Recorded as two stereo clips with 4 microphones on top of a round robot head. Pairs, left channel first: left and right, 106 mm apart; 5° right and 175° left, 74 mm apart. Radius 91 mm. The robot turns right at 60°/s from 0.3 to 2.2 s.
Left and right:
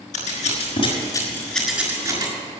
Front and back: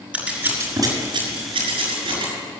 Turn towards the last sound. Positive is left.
turn(degrees=-145)